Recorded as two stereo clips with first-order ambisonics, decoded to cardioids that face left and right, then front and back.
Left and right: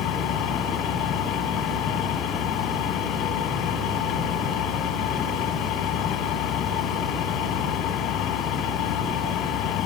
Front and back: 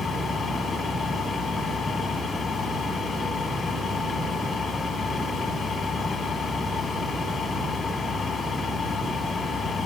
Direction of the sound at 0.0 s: 65° left.